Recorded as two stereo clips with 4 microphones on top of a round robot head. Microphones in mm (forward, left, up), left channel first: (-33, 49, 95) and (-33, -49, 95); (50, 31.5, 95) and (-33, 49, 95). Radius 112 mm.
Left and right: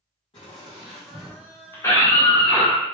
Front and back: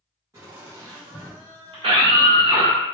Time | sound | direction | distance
0.3 | laughter | 120° left | 0.7 m
1.7 | a scream | 150° left | 1.0 m